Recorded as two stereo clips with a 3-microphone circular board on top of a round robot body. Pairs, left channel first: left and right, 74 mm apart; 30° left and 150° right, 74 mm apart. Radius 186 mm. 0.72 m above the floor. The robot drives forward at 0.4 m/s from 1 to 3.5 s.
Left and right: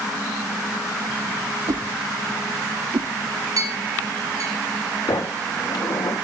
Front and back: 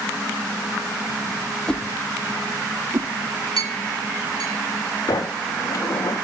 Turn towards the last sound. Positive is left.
turn(degrees=70)